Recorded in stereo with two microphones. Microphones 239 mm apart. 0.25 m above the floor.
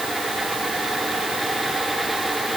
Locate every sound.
Only background noise.